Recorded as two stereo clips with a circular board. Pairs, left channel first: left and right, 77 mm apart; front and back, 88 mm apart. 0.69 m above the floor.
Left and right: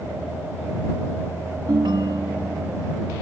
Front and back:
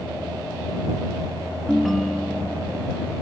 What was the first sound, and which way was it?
A ringtone, 90° right.